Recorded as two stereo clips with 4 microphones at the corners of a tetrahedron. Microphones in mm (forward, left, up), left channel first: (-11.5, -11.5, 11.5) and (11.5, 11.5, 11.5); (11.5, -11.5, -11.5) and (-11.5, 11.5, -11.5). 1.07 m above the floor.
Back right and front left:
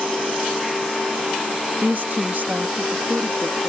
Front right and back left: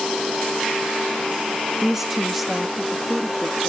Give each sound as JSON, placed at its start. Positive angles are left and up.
{"t": 1.8, "sound": "a woman speaking", "azimuth_deg": 60}